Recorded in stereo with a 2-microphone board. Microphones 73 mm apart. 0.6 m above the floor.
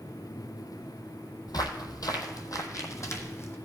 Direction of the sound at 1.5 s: 60° left (ahead or behind).